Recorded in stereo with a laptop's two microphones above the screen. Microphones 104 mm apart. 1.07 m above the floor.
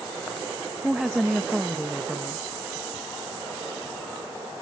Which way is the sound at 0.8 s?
Centre (ahead or behind).